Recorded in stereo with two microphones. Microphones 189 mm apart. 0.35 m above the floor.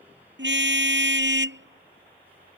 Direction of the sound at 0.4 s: 70° right (ahead or behind).